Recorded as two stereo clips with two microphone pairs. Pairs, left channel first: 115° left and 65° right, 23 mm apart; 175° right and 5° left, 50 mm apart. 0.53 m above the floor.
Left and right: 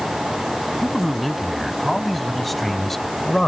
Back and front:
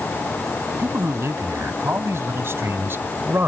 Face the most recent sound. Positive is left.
turn(degrees=40)